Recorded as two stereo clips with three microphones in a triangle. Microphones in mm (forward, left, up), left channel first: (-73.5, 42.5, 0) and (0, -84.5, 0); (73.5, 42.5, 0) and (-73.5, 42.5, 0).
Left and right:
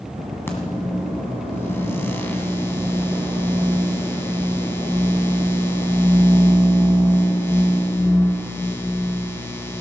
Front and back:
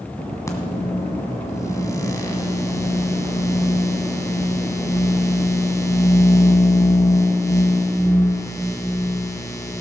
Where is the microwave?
55° left, 1.6 m.